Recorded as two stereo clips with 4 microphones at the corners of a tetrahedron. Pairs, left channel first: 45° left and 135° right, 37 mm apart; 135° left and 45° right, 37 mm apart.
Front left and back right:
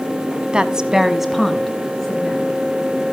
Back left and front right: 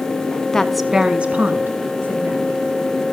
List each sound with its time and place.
0.5 s a woman speaking: 170° right, 1.1 m; by 2.6 s 30° right, 2.5 m